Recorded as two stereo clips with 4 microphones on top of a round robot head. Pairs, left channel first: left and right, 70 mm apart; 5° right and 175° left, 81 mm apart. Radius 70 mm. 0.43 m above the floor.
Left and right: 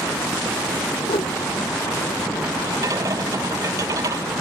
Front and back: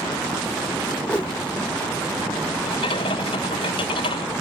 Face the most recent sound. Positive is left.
turn(degrees=-35)